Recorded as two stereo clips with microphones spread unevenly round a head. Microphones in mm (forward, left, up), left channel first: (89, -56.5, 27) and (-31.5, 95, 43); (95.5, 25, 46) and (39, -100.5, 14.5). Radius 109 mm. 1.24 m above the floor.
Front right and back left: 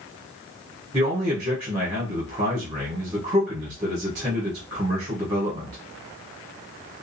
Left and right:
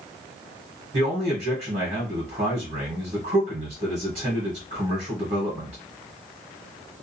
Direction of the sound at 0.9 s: 160° right.